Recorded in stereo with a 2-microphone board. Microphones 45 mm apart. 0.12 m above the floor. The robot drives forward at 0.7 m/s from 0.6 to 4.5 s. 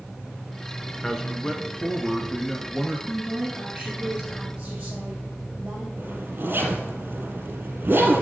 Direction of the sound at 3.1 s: 25° right (ahead or behind).